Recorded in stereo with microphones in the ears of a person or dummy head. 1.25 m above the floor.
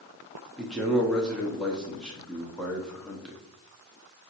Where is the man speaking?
Centre (ahead or behind), 0.6 m.